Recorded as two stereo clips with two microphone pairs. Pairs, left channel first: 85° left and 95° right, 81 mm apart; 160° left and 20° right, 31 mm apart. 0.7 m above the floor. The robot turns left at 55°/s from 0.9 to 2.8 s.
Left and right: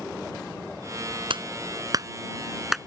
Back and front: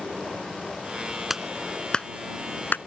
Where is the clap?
100° right; by 2.8 s 175° left.